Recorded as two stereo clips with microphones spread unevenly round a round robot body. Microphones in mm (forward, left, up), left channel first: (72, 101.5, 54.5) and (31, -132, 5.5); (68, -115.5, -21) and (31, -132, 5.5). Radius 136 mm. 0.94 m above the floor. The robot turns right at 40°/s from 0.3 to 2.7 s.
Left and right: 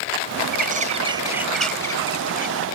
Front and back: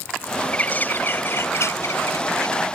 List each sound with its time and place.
0.5 s a bird: 50° right; by 2.5 s 35° left